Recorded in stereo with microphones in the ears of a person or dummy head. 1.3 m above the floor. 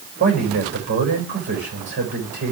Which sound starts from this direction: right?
A man speaking, at 0.2 s.